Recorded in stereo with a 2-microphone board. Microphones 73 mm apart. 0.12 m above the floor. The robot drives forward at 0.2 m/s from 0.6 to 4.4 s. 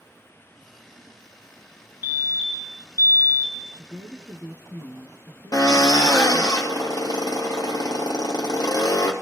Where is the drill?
50° left (ahead or behind), 2.5 m.